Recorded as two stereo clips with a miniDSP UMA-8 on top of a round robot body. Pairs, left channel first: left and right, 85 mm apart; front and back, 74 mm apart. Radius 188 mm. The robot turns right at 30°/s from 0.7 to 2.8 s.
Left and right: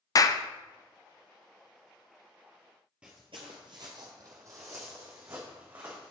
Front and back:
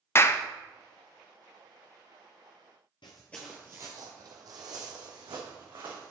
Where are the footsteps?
10° right, 0.6 m; by 6.1 s 150° right, 3 m.